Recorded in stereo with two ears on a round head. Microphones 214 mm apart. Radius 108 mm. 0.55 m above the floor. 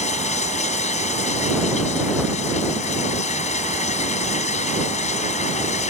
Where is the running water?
30° left (ahead or behind).